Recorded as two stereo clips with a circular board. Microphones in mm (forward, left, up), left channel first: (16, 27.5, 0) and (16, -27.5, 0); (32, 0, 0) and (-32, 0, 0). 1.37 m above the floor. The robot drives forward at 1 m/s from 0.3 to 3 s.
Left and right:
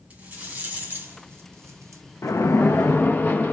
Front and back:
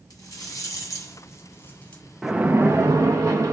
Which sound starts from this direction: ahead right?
A rattle, at 0.1 s.